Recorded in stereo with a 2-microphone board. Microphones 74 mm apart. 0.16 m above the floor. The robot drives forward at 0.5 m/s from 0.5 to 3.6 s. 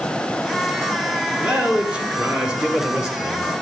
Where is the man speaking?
15° right (ahead or behind), 2.5 m; by 3.6 s 10° right (ahead or behind), 3.5 m.